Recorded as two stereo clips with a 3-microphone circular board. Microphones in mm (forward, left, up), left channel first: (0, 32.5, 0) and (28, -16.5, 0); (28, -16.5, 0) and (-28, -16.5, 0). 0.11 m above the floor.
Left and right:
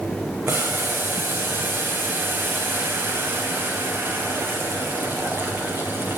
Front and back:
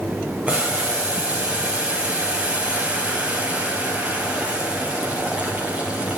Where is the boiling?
115° right, 2.5 m.